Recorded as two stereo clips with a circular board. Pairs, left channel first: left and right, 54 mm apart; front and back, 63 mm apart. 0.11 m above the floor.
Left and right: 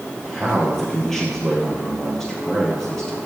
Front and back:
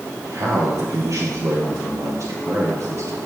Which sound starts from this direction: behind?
A man speaking, at 0.2 s.